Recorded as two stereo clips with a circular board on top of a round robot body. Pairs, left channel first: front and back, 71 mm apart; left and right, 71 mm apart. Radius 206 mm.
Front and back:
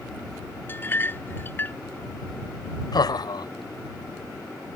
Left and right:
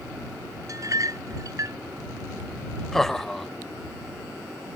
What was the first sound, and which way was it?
A clink, 55° right.